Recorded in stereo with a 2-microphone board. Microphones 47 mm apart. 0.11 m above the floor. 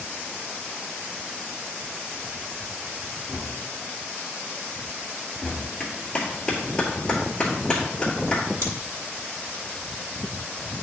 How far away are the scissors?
About 1.7 m.